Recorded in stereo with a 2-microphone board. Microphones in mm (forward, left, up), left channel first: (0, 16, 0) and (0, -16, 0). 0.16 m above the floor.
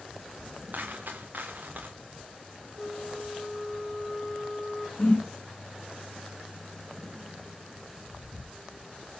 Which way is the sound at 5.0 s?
40° left (ahead or behind).